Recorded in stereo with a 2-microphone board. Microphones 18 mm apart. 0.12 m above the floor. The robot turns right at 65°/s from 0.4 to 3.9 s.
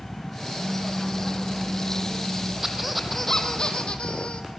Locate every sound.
0.6 s a pop: 75° right, 5.5 m; by 2.5 s 50° left, 5.5 m
2.6 s a squeak: 25° right, 2.5 m; by 4.5 s 60° left, 2.5 m